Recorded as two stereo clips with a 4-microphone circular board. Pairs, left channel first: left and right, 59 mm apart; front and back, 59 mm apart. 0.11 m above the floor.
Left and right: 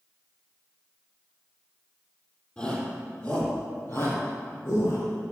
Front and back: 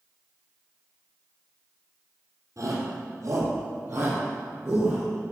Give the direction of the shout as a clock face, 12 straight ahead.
7 o'clock.